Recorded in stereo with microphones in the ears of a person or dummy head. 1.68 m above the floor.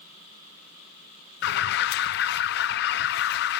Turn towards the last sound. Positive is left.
turn(degrees=55)  # may be behind; listen again after turning